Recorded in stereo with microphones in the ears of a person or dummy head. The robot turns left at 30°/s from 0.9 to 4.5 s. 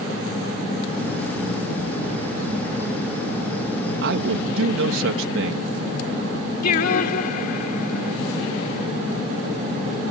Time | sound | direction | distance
4.0 | a man speaking | 70° right (ahead or behind) | ?
6.6 | singing | 55° left (ahead or behind) | ?